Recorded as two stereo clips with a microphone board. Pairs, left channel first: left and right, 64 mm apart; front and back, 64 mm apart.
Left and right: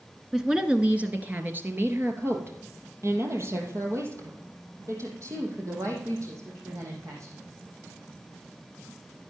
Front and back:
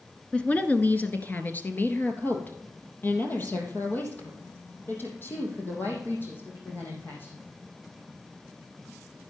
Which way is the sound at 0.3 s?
20° right.